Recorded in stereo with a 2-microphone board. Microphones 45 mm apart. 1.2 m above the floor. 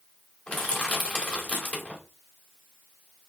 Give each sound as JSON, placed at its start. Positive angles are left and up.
{"t": 0.5, "sound": "crushing", "side_deg": 35, "distance_m": 2.0}